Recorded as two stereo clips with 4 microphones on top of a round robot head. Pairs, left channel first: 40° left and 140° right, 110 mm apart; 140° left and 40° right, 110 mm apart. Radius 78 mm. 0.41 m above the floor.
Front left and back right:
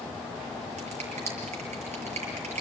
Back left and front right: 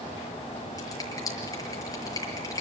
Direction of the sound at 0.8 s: 160° right.